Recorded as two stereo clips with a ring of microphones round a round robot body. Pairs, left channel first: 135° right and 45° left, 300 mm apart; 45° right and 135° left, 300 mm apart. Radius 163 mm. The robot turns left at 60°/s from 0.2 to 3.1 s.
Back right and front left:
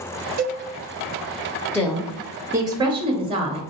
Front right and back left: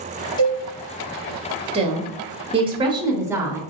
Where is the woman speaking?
155° left, 0.8 m; by 3.6 s 75° left, 0.8 m.